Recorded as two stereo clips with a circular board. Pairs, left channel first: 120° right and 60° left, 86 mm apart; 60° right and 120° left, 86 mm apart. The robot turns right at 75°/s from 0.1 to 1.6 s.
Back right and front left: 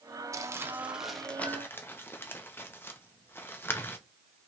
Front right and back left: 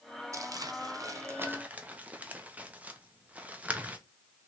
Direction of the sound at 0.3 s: 90° left.